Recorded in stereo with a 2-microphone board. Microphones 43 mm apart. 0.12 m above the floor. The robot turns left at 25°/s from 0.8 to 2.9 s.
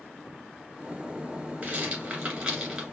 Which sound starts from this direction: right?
A rattle, at 1.6 s.